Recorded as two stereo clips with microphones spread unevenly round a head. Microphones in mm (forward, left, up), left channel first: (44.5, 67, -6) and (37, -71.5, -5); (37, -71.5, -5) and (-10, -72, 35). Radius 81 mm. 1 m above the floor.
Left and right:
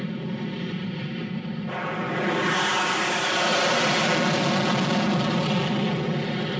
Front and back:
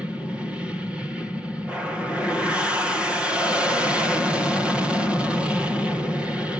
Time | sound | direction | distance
0.0 | an aircraft | 5° right | ?